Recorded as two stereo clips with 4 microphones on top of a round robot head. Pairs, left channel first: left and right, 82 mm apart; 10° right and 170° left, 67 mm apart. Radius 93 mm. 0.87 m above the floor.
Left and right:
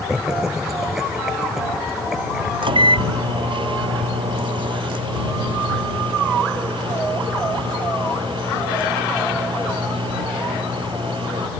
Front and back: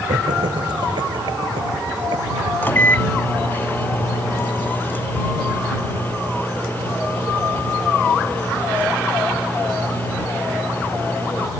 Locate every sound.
0.1 s laughter: 175° right
2.6 s a microwave: 75° right